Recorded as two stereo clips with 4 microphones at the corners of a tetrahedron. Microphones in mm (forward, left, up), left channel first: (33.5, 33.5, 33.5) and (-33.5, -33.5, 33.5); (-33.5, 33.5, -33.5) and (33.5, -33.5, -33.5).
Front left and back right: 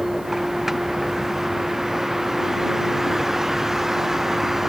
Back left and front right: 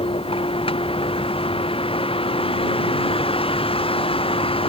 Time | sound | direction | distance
0.0 | a vehicle | 140° left | ?